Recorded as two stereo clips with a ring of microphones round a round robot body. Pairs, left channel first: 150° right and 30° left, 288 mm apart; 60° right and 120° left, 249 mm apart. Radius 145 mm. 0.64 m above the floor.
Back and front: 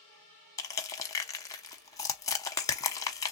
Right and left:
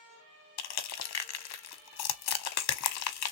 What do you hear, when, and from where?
0.6 s crushing: 70° right, 0.8 m